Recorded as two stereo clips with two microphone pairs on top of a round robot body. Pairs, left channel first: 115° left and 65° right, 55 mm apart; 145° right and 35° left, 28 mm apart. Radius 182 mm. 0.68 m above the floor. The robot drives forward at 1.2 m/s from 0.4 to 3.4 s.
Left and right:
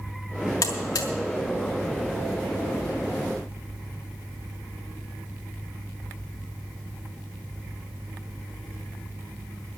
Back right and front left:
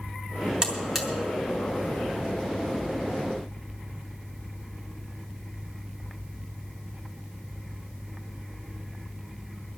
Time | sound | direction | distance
0.6 | a buzzer | 100° left | 1.2 m